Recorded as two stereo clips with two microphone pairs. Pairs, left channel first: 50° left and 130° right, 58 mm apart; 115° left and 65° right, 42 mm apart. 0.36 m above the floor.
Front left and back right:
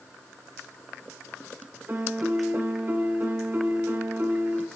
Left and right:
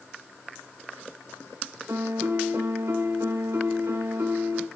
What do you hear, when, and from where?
1.9 s a piano: 70° right, 1.0 m